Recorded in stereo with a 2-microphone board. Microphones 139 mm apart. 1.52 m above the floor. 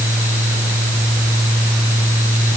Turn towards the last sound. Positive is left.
No sound to turn to.